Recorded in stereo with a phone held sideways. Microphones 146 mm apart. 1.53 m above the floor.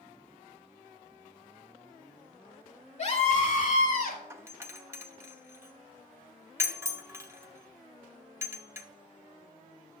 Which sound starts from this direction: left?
A scream, at 3.0 s.